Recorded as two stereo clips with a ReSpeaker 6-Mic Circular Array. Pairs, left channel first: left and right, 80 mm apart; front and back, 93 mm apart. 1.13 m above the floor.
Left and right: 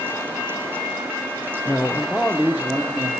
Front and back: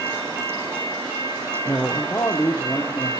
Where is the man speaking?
55° left, 0.6 m; by 3.1 s 60° right, 0.7 m.